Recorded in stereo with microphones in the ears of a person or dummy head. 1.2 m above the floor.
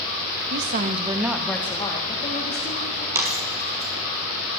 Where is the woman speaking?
60° right (ahead or behind), 1.3 m; by 3.0 s 45° left (ahead or behind), 3 m.